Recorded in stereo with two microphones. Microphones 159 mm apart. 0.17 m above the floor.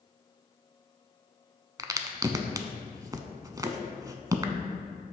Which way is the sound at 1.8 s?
25° right (ahead or behind).